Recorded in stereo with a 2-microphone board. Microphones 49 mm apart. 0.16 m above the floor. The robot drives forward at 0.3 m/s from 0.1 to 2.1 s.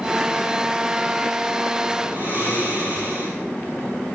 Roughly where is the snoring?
Right.